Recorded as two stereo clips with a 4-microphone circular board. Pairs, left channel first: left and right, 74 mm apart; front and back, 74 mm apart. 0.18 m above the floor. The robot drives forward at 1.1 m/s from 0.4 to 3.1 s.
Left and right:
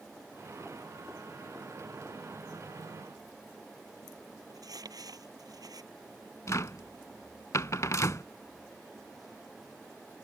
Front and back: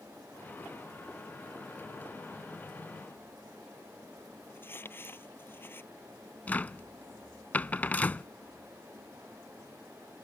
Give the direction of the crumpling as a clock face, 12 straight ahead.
2 o'clock.